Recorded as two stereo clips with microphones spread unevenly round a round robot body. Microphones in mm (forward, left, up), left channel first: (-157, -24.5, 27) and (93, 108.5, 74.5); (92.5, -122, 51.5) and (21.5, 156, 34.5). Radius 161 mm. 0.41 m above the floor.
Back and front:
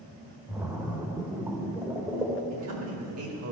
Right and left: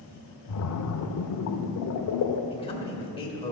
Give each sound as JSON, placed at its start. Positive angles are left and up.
{"t": 0.5, "sound": "a splash", "azimuth_deg": -60, "distance_m": 0.8}
{"t": 2.5, "sound": "a man speaking", "azimuth_deg": -5, "distance_m": 2.0}